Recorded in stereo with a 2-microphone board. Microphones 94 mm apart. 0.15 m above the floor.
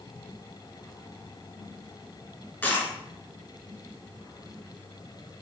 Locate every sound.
2.6 s a dropped coin: 20° left (ahead or behind), 0.8 m